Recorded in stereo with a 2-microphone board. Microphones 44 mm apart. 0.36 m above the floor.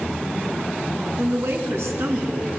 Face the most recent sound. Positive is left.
turn(degrees=-75)  # may be behind; listen again after turning